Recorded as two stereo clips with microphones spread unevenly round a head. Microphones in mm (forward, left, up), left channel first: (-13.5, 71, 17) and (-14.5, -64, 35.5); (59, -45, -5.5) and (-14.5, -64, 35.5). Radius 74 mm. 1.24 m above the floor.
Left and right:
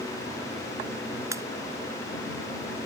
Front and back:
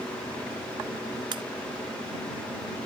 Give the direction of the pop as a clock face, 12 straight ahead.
5 o'clock.